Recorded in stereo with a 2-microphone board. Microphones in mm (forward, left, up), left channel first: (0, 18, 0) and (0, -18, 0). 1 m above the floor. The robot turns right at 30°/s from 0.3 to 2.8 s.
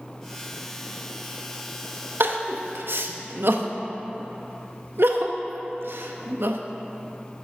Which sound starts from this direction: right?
Crying, at 2.2 s.